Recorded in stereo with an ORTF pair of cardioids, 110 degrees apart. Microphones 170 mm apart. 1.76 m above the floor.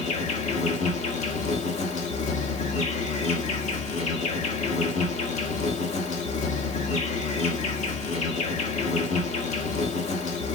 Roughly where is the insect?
Ahead left.